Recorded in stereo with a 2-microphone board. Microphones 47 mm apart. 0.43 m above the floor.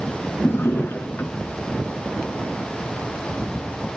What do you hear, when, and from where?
0.4 s a drawer: 50° left (ahead or behind), 3.5 m